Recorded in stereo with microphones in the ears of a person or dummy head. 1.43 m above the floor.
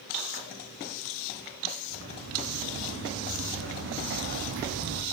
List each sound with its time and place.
1.9 s footsteps: 70° right (ahead or behind), 8 m; by 5.0 s 60° right (ahead or behind), 3.5 m